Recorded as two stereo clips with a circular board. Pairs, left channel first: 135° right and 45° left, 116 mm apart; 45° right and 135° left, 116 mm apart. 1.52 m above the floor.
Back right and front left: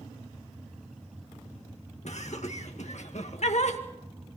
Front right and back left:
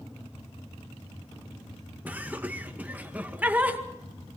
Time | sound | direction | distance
2.0 | laughter | 150° right | 2 m